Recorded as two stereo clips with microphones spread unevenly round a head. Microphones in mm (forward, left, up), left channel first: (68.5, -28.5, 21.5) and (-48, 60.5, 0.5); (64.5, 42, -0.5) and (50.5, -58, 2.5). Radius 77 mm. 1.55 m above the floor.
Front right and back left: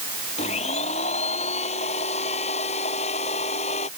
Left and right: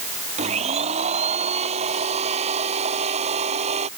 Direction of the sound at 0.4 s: 90° right.